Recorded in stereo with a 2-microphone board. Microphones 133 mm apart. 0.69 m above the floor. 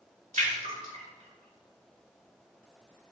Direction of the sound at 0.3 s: 80° right.